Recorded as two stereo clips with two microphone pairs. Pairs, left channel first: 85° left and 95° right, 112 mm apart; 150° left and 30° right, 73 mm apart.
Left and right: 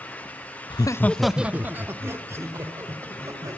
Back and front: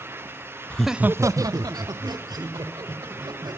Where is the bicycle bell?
No bicycle bell in this recording.